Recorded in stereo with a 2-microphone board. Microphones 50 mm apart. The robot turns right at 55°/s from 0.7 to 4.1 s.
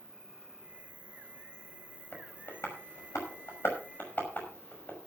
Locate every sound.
0.0 s an insect: 170° right, 1.1 m; by 5.1 s 20° left, 1.1 m
2.1 s tapping: 35° left (ahead or behind), 5.5 m